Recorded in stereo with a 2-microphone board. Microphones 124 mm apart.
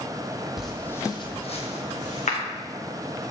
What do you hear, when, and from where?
0.6 s footsteps: 5° right (ahead or behind), 0.6 m; by 2.4 s 75° left (ahead or behind), 1.0 m